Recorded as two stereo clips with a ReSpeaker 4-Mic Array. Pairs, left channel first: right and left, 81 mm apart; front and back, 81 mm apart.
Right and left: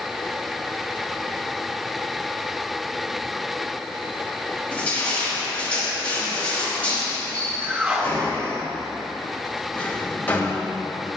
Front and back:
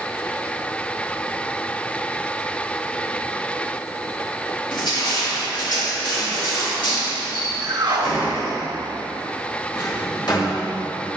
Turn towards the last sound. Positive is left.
turn(degrees=-25)